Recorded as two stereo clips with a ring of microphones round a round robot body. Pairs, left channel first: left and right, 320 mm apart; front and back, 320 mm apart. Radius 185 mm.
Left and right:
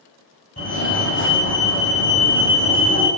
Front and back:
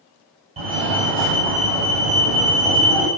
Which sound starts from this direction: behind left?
A fire alarm, at 0.6 s.